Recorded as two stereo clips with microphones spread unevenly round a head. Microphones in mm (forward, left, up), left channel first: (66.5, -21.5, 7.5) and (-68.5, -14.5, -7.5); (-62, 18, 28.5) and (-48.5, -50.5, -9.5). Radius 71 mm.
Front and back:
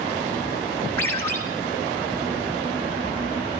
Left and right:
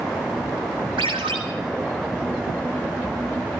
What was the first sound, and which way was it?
A ringtone, 75° right.